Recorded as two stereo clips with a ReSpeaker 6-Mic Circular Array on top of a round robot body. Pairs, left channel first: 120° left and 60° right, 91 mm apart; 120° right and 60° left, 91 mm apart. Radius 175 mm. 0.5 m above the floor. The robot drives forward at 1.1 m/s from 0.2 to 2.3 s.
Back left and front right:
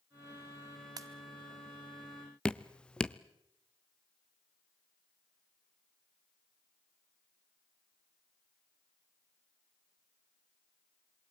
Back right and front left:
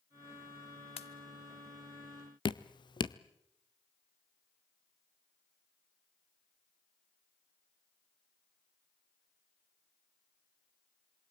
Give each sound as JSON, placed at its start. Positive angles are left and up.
{"t": 1.0, "sound": "a pop", "azimuth_deg": -110, "distance_m": 0.8}
{"t": 2.5, "sound": "dripping", "azimuth_deg": -160, "distance_m": 0.7}